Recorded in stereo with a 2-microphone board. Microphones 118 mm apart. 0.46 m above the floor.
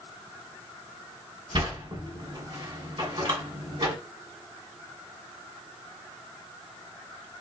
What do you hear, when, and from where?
1.5 s a sliding door: 45° right (ahead or behind), 2 m